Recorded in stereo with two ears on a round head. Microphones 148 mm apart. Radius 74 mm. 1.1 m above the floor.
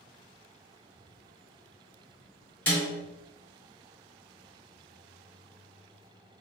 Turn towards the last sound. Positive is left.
turn(degrees=15)  # may be behind; listen again after turning